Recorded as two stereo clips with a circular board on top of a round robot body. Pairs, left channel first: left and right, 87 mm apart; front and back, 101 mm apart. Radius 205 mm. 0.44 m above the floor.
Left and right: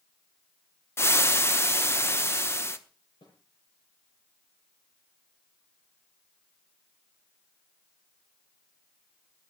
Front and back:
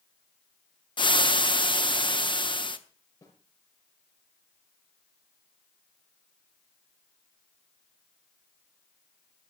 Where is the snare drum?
55° left, 6.5 m.